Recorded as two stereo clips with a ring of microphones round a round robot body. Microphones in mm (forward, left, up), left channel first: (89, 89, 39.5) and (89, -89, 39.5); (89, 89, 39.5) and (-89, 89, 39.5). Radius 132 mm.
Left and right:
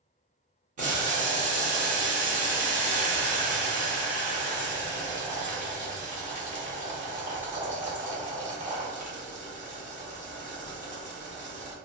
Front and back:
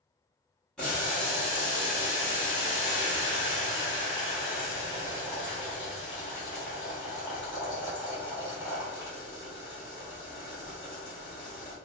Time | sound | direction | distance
0.8 | boiling | 85° right | 1.1 m